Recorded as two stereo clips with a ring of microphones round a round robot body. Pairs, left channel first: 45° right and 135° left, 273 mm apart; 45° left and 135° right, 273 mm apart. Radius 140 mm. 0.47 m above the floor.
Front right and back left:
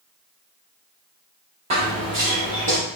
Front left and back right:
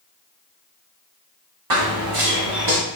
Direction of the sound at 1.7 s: 155° right.